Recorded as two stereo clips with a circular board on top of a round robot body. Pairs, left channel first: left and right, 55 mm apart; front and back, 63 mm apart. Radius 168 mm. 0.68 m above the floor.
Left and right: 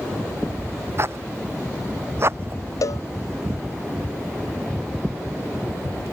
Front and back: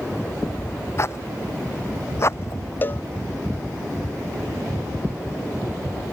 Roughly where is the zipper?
Ahead right.